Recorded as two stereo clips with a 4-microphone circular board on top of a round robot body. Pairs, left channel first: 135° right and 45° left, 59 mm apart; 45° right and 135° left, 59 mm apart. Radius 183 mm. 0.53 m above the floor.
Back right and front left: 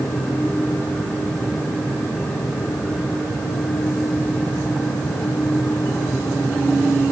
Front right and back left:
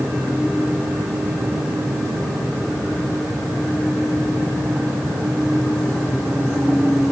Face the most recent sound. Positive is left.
No sound to turn to.